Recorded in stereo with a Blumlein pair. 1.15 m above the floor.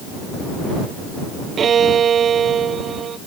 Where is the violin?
25° right.